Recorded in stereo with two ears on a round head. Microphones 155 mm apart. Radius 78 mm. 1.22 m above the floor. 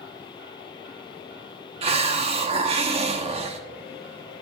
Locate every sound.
1.8 s a hiss: 35° right (ahead or behind), 1.0 m